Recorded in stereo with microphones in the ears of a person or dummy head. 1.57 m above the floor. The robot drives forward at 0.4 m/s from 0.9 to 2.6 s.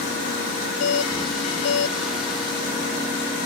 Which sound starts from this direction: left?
A doorbell, at 0.8 s.